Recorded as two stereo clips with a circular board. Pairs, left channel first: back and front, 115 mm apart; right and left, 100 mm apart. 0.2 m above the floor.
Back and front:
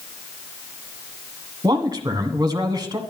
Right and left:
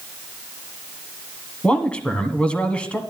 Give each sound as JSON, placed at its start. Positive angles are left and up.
{"t": 1.6, "sound": "a man speaking", "azimuth_deg": -20, "distance_m": 1.6}